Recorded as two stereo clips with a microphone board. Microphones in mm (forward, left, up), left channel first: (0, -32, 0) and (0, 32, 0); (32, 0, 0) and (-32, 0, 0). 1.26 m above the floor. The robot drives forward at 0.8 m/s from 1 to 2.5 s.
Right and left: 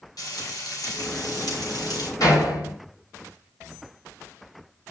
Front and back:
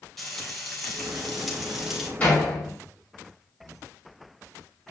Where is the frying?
85° right, 5 m; by 2.1 s 95° right, 5 m.